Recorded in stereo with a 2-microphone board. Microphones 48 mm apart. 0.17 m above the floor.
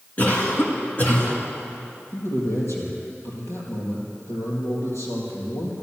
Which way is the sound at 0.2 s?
35° left (ahead or behind).